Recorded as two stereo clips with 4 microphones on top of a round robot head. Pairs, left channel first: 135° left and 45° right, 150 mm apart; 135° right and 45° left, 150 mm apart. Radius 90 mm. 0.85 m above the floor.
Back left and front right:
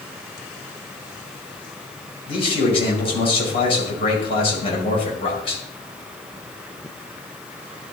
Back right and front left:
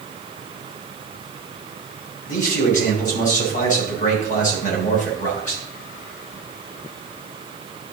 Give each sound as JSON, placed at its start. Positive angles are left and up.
{"t": 2.3, "sound": "a man speaking", "azimuth_deg": -170, "distance_m": 3.0}